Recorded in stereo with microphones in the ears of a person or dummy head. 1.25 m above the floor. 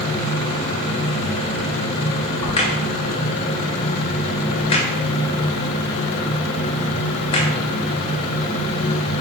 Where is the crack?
25° left (ahead or behind), 0.6 m.